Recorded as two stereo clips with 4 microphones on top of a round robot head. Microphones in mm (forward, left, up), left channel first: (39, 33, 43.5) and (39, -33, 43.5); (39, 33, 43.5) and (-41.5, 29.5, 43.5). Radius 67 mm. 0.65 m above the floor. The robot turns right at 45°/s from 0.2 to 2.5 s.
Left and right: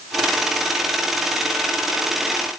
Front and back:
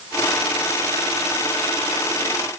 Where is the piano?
No piano in this recording.